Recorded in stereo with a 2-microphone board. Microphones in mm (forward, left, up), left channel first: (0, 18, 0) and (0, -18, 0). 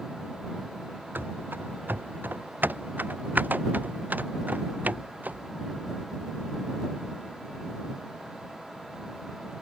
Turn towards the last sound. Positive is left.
turn(degrees=-50)  # may be behind; listen again after turning